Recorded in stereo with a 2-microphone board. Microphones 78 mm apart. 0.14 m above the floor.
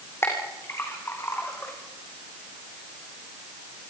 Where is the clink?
35° left (ahead or behind), 5 m.